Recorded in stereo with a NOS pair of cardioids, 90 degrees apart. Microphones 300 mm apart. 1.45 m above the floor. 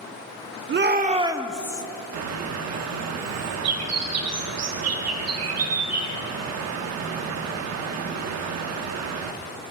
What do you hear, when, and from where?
0.7 s a shout: 40° right, 0.9 m; by 1.8 s 15° left, 0.8 m
2.1 s a bird: 60° right, 1.2 m